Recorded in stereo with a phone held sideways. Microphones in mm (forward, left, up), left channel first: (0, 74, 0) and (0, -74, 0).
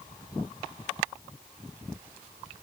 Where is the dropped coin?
No dropped coin in this recording.